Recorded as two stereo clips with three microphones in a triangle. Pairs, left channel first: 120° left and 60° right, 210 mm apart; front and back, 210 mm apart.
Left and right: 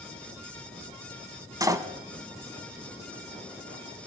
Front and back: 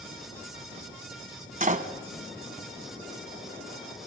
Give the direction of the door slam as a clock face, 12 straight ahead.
4 o'clock.